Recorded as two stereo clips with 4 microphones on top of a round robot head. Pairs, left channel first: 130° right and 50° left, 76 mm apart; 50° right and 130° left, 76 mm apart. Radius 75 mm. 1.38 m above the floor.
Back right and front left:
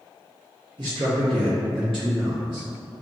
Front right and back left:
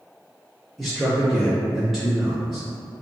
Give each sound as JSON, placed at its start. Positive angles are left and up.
{"t": 0.8, "sound": "a man speaking", "azimuth_deg": 40, "distance_m": 1.2}